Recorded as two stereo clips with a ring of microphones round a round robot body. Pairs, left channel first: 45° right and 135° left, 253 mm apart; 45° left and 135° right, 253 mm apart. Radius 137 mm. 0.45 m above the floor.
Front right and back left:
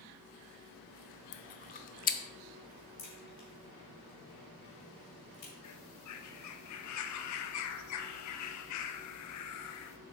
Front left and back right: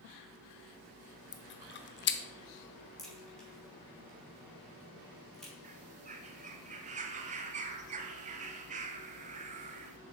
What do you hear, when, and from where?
1.3 s chewing: 5° left, 0.7 m
3.0 s a crack: 45° right, 3 m
5.6 s a bird: 70° right, 0.7 m